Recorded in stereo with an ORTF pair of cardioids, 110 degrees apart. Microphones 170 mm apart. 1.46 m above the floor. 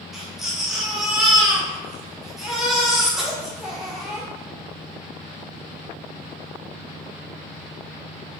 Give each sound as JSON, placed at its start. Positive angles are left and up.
{"t": 0.1, "sound": "a baby crying", "azimuth_deg": 0, "distance_m": 1.3}